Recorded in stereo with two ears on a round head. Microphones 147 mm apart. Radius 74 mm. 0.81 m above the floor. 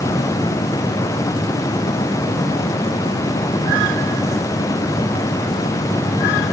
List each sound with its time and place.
Only background noise.